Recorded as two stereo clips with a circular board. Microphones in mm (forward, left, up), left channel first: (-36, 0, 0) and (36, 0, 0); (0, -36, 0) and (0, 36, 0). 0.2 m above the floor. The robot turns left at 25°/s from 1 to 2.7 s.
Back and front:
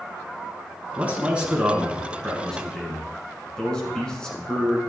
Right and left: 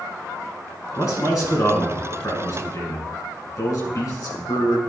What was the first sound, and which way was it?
A man speaking, 60° right.